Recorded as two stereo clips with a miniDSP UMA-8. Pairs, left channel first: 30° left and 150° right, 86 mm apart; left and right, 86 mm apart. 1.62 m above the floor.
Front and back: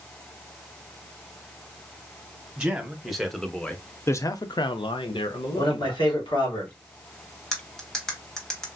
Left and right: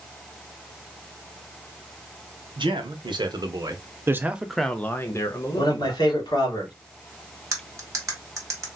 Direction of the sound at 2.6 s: 70° right.